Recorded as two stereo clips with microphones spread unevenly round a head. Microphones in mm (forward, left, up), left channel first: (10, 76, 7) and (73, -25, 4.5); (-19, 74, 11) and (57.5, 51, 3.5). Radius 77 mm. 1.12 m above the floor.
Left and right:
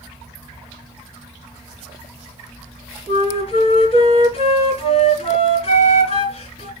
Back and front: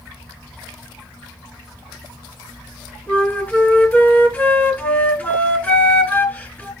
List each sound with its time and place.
3.1 s a flute: 95° left, 2.5 m